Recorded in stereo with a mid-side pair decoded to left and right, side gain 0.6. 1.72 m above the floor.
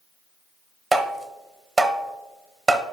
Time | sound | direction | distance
0.9 | tapping | 20° right | 0.9 m